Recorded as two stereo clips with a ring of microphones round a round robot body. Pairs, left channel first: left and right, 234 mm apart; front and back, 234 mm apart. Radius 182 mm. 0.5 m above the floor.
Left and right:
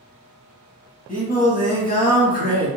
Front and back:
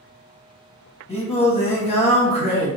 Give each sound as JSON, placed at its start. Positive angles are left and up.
{"t": 1.1, "sound": "singing", "azimuth_deg": 55, "distance_m": 1.1}